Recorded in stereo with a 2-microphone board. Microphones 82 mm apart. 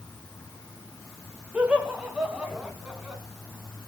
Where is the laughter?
15° right (ahead or behind), 1.9 m.